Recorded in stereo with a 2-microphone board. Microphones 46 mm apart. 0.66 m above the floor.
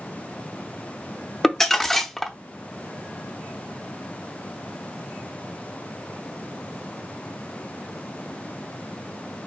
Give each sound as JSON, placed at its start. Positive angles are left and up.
{"t": 1.4, "sound": "crumpling", "side_deg": 5, "distance_m": 0.6}